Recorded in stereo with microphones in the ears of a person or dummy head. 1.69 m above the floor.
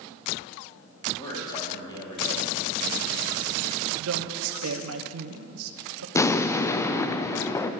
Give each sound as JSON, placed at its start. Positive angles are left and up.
{"t": 1.2, "sound": "a man speaking", "side_deg": 25, "distance_m": 4.0}
{"t": 4.0, "sound": "a woman speaking", "side_deg": -85, "distance_m": 1.1}
{"t": 6.2, "sound": "an explosion", "side_deg": 20, "distance_m": 0.6}